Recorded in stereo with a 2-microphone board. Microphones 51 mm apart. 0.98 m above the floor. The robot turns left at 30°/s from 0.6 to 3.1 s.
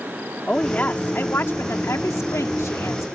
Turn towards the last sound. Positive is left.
turn(degrees=75)